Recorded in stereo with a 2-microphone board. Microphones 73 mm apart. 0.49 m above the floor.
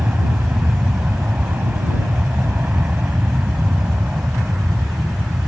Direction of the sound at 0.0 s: 25° right (ahead or behind).